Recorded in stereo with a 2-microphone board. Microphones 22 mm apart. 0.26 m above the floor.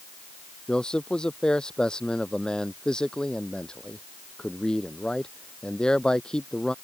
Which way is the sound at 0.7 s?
45° left (ahead or behind).